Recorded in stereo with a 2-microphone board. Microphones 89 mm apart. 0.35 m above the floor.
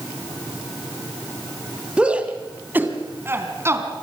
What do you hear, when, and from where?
2.0 s a shout: 10° right (ahead or behind), 2.5 m; by 3.9 s 30° right (ahead or behind), 3.5 m